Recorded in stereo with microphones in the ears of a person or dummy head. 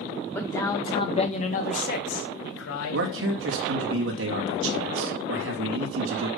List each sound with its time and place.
0.3 s a man speaking: 10° left (ahead or behind), 2 m; by 3.1 s 80° left, 2.5 m
2.9 s a man speaking: 80° right, 2.5 m